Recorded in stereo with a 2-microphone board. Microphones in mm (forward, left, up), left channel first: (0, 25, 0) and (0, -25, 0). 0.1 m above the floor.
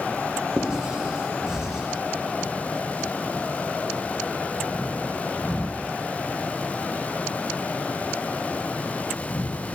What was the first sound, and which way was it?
Writing, 15° right (ahead or behind).